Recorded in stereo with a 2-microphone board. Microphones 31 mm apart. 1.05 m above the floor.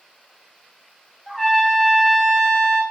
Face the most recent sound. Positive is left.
turn(degrees=15)  # may be behind; listen again after turning